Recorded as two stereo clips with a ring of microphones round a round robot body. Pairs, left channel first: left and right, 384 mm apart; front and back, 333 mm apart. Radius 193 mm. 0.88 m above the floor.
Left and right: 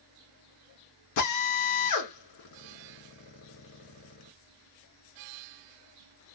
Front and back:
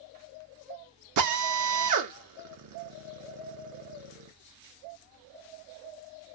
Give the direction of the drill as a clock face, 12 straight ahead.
7 o'clock.